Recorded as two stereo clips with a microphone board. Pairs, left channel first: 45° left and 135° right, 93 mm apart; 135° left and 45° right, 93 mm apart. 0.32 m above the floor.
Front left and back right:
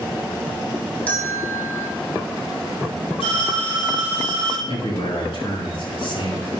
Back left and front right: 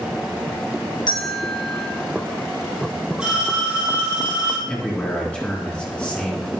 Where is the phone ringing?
35° left, 6 m.